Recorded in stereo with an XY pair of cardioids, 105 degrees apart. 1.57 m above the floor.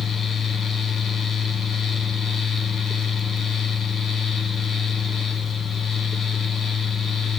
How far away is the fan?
About 1.1 m.